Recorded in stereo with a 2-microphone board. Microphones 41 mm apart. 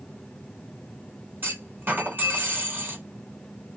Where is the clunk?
55° right (ahead or behind), 2 m.